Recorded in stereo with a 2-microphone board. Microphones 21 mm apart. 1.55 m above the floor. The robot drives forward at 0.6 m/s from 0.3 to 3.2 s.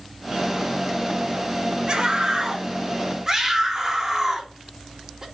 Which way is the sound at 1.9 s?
50° right (ahead or behind).